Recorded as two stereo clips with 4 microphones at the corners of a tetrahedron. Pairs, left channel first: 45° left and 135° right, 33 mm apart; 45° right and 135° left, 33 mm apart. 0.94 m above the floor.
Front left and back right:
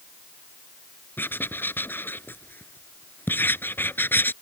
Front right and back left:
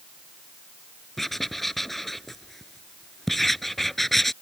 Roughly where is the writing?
Ahead left.